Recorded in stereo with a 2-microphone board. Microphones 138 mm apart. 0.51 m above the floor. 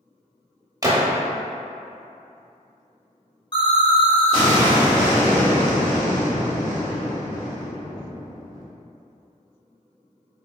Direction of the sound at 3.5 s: 35° left (ahead or behind).